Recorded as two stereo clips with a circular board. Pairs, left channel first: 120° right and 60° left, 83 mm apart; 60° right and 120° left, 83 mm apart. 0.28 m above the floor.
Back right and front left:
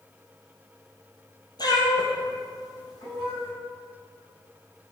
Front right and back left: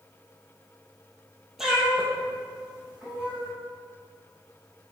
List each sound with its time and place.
1.6 s a cat meowing: 155° right, 1.5 m; by 3.5 s 160° right, 3.5 m